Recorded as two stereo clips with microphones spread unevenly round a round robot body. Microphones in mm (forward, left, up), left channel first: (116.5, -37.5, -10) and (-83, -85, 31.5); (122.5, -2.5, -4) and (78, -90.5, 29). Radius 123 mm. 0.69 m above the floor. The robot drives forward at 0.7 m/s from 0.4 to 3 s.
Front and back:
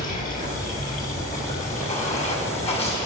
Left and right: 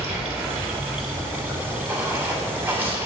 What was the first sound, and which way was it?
Running water, 35° right.